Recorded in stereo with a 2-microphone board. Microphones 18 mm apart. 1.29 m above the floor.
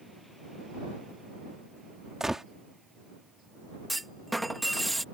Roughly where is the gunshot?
Right.